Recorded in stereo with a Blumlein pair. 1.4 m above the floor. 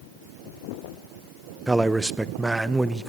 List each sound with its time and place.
1.7 s a man speaking: 5° right, 0.8 m